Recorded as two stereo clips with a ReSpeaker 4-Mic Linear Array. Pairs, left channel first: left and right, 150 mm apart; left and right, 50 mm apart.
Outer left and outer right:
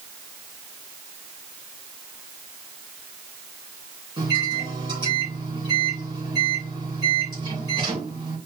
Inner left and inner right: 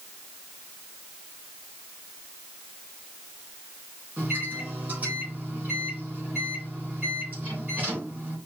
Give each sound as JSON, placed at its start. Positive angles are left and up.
{"t": 4.2, "sound": "a microwave", "side_deg": -30, "distance_m": 3.5}